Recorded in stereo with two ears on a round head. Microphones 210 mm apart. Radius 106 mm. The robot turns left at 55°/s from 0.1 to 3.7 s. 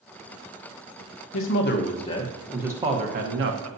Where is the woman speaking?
65° left, 1.0 m; by 3.7 s 65° right, 1.0 m.